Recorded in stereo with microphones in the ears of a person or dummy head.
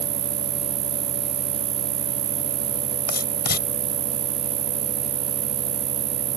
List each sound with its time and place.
0.0 s an insect: 40° right (ahead or behind)
3.1 s writing: 50° left (ahead or behind)